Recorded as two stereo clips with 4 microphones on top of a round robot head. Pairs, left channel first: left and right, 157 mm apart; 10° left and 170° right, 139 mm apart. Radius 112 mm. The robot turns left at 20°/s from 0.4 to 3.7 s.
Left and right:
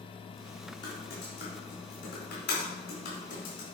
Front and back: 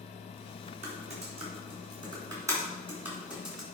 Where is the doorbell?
I don't hear a doorbell.